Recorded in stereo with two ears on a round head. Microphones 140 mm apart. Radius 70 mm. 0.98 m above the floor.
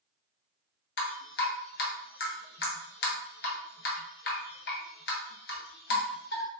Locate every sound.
1.0 s dripping: 65° left (ahead or behind), 0.7 m